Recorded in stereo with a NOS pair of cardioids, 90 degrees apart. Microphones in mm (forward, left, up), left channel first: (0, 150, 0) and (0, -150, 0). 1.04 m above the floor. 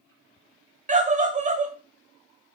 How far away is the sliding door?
I don't hear a sliding door.